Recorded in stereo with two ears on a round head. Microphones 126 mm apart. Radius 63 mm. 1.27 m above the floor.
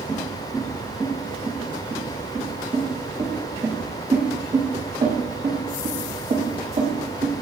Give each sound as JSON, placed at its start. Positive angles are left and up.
{"t": 0.1, "sound": "footsteps", "side_deg": 5, "distance_m": 3.5}